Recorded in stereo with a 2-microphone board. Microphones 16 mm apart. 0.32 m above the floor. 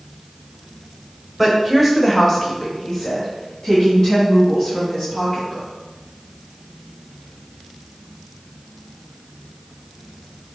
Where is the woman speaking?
10° right (ahead or behind), 1.2 m; by 5.7 s 40° left (ahead or behind), 3.5 m.